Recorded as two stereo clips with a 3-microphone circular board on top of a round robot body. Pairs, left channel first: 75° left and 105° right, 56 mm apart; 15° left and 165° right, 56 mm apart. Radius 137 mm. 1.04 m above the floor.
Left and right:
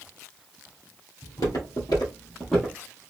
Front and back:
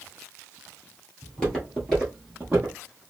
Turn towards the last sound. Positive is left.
turn(degrees=-150)